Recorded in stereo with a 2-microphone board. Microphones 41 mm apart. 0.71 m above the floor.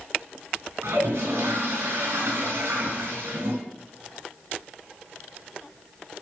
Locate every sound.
0.8 s a toilet flushing: 85° right, 4 m